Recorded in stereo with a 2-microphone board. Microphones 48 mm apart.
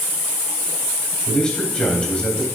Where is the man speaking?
20° left (ahead or behind), 3 m.